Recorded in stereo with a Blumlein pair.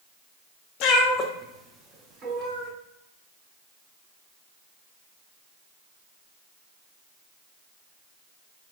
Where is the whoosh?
No whoosh in this recording.